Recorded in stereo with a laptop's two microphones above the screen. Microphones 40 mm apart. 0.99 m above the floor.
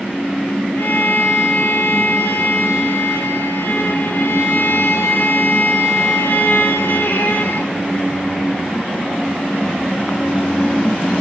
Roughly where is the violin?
Left.